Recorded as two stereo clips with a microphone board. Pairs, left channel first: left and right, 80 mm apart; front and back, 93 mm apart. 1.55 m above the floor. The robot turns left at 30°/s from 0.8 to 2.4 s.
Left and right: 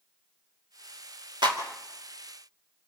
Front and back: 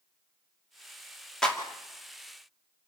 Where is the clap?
85° right, 2.5 m; by 1.6 s 90° right, 2.5 m.